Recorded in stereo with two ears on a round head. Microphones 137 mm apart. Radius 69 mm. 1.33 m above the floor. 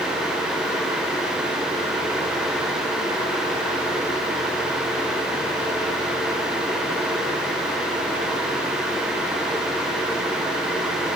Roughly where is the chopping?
No chopping in this recording.